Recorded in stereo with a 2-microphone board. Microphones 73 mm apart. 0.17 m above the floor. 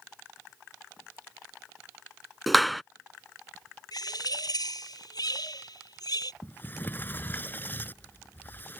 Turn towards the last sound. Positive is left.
turn(degrees=30)  # may be behind; listen again after turning